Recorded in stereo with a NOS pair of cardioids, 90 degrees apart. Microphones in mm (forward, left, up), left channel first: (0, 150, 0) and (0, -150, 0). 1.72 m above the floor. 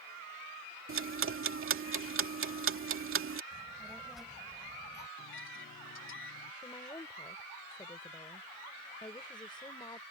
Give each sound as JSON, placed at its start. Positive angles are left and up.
{"t": 0.9, "sound": "ticking", "azimuth_deg": -45}
{"t": 3.5, "sound": "a child speaking", "azimuth_deg": 0}
{"t": 5.2, "sound": "a microwave", "azimuth_deg": 45}
{"t": 6.6, "sound": "a woman speaking", "azimuth_deg": 15}